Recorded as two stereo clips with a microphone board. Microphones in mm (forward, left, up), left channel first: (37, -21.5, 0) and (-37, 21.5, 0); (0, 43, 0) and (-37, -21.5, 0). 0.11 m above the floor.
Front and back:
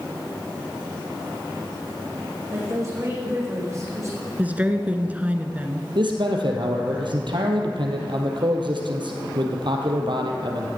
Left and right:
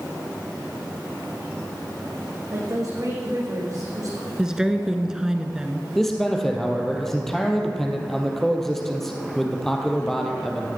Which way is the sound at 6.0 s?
145° left.